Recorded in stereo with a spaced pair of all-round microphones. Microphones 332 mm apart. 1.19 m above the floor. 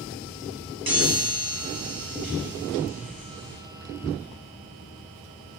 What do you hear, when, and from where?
0.9 s a chime: 90° right, 1.1 m